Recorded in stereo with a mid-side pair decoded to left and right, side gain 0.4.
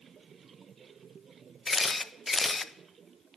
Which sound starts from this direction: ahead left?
A camera shutter, at 1.7 s.